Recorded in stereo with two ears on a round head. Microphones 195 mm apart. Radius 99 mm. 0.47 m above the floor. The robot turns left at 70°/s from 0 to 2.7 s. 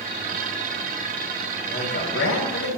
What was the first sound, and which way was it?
A man speaking, 150° left.